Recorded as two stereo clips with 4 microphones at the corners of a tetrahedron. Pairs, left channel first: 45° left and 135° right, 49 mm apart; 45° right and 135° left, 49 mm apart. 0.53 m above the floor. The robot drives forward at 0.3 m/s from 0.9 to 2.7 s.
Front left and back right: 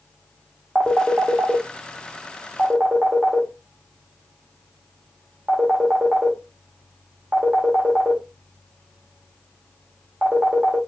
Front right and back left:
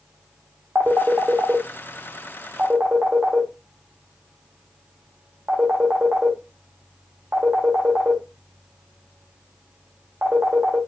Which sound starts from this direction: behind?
A phone ringing, at 0.8 s.